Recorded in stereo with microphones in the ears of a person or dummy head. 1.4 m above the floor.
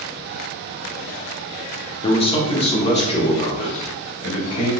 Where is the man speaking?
30° left (ahead or behind), 0.7 m; by 4.7 s 40° left (ahead or behind), 2.5 m.